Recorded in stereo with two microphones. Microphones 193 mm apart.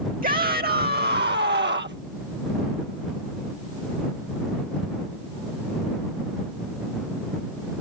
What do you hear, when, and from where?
0.2 s a shout: 45° right (ahead or behind); by 2.0 s 65° right (ahead or behind)